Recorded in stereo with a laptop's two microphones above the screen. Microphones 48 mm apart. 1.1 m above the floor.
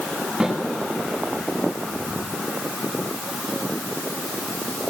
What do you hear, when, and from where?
0.4 s a snare drum: 10° right (ahead or behind), 9 m